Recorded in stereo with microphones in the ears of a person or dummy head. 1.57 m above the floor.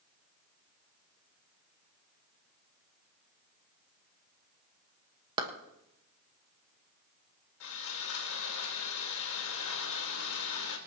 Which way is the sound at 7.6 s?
70° left (ahead or behind).